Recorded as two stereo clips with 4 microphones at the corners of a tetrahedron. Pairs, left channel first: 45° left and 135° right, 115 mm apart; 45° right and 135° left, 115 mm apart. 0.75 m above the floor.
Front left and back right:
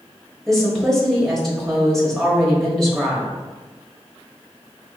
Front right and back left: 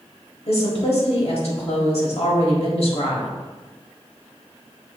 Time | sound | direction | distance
0.5 | a woman speaking | 40° right | 1.5 m